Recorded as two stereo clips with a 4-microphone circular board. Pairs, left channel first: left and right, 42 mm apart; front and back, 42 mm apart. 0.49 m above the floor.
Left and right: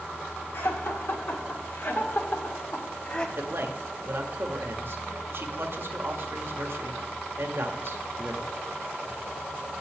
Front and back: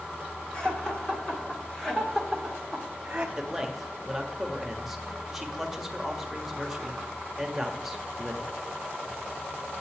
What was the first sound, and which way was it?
Laughter, 65° left.